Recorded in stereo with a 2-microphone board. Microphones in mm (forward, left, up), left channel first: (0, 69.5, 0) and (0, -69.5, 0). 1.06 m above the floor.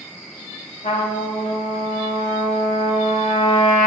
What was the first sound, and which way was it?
A trumpet, 65° left (ahead or behind).